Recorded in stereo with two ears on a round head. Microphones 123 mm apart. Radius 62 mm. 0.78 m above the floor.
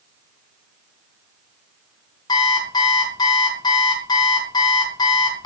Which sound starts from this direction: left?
An alarm clock, at 2.3 s.